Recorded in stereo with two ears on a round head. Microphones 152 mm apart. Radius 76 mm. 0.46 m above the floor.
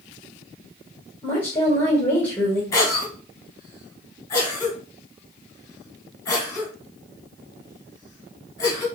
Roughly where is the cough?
Centre.